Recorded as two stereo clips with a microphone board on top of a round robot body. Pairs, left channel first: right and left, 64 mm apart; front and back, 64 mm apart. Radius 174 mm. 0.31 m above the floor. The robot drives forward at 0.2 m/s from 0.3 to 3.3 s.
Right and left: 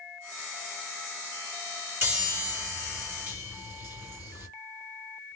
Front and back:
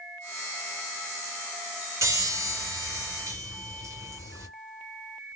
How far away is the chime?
About 1.8 m.